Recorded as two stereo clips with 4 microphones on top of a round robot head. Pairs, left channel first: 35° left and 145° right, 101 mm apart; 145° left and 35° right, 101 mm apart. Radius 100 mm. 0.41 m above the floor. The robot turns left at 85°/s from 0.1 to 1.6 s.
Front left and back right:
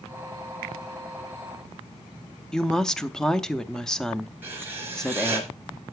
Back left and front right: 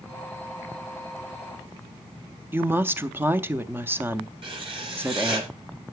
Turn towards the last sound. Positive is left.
turn(degrees=-75)